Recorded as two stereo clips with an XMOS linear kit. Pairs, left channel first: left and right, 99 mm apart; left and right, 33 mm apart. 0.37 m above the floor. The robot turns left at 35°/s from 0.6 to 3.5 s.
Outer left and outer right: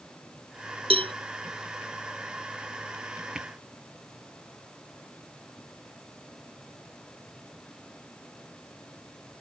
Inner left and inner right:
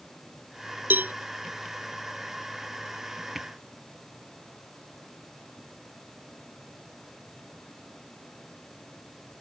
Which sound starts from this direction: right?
A cowbell, at 0.9 s.